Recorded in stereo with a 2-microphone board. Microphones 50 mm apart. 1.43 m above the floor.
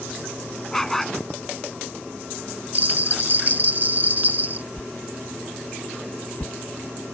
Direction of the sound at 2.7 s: 40° right (ahead or behind).